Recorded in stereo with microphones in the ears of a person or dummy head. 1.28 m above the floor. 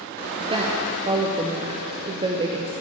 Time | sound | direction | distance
0.4 | a woman speaking | 25° right (ahead or behind) | 0.5 m